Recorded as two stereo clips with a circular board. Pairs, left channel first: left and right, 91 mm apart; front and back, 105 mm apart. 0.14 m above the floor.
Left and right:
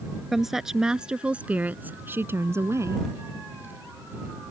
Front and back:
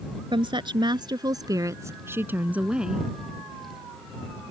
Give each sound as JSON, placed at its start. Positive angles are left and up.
{"t": 0.3, "sound": "a woman speaking", "azimuth_deg": 180}